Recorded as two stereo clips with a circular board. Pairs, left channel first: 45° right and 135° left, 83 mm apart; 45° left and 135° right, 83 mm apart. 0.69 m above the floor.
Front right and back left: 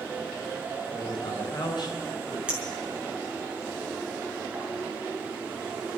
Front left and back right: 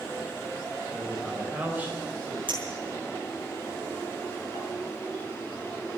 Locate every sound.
0.9 s a man speaking: 45° right, 4 m; by 2.4 s 85° right, 3.5 m
2.5 s a clink: 145° right, 5 m